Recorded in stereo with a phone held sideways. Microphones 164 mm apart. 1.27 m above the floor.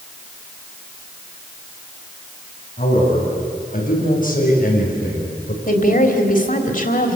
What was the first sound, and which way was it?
A man speaking, 55° left (ahead or behind).